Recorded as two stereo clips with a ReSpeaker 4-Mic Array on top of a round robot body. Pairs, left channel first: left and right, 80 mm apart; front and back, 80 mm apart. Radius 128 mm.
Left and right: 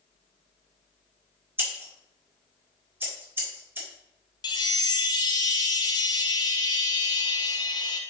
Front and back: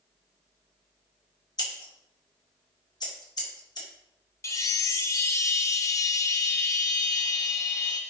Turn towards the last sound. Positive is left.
turn(degrees=55)